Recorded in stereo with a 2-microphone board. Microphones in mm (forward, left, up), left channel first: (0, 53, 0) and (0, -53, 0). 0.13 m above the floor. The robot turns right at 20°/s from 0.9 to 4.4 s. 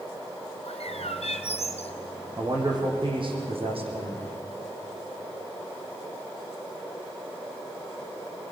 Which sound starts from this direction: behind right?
A man speaking, at 2.4 s.